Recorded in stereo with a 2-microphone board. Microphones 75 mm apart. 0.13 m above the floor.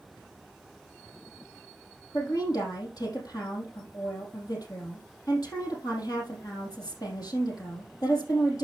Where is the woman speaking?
60° left (ahead or behind), 4.5 m.